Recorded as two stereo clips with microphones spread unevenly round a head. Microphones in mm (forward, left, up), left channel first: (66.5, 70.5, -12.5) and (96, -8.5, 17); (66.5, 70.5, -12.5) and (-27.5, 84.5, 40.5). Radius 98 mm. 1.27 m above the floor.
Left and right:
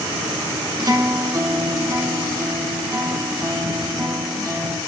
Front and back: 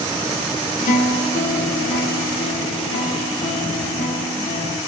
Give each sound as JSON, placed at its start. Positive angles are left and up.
{"t": 0.8, "sound": "a guitar", "azimuth_deg": -40, "distance_m": 1.5}